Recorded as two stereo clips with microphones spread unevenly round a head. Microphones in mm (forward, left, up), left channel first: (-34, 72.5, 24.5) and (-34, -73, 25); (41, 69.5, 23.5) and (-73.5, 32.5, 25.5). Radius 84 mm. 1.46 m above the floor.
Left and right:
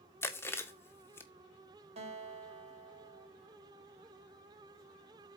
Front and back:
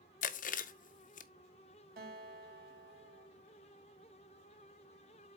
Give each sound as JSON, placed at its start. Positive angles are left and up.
{"t": 0.2, "sound": "chewing", "azimuth_deg": 15, "distance_m": 0.7}
{"t": 2.0, "sound": "a guitar", "azimuth_deg": -135, "distance_m": 2.5}